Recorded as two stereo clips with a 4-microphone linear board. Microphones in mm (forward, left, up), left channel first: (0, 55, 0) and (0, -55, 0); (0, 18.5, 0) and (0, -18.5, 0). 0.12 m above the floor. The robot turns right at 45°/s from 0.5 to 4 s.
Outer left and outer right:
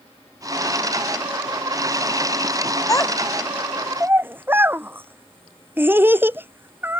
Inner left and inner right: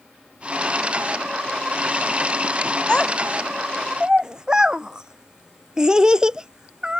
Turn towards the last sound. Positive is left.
turn(degrees=-20)  # may be behind; listen again after turning